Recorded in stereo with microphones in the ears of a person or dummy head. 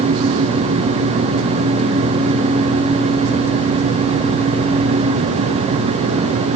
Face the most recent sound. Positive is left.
No sound to turn to.